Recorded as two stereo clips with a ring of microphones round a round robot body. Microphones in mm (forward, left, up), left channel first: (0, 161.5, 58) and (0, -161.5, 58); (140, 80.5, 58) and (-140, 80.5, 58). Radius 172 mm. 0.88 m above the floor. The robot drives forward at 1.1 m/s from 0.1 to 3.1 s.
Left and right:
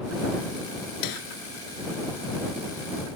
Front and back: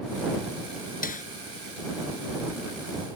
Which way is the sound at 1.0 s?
60° left.